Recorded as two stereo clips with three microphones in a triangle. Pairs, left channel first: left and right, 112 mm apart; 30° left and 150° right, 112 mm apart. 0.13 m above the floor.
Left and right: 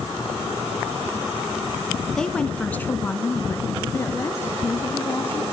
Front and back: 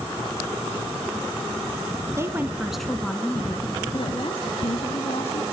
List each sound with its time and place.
2.2 s a woman speaking: 170° left, 1.8 m; by 5.4 s 25° left, 3.5 m